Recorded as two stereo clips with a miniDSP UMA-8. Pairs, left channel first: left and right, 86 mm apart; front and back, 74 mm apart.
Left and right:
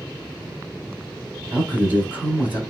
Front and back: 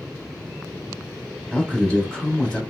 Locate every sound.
1.5 s a man speaking: 55° right, 1.1 m